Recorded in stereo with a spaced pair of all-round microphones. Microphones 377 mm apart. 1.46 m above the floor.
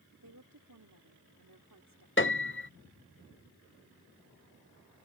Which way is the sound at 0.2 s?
55° right (ahead or behind).